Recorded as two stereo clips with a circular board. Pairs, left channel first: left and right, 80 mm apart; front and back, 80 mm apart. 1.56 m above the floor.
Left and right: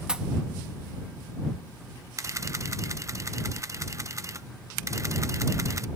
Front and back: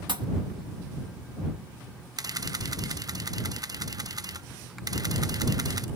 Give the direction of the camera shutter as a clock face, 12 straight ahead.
5 o'clock.